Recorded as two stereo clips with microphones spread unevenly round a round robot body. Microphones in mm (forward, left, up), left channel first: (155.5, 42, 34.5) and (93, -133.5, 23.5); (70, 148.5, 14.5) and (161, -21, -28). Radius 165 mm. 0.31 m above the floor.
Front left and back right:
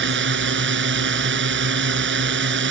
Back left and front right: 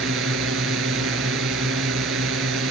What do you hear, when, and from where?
0.0 s a drone: 110° right